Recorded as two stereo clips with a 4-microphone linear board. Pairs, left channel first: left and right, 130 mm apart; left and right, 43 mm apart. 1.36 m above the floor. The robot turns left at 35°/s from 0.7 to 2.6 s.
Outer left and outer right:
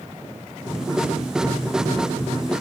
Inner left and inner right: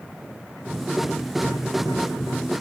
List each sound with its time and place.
Only background noise.